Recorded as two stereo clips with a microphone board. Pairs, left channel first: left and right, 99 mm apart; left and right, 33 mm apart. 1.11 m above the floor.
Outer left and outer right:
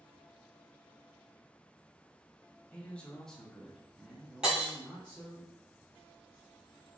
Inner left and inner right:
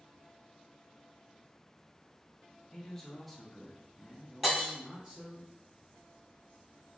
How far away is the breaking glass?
About 1.1 m.